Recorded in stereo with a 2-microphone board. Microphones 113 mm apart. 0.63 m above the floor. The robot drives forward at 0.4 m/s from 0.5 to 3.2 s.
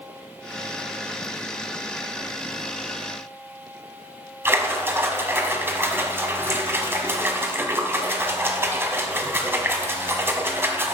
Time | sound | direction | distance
4.5 | a splash | 20° right (ahead or behind) | 1.1 m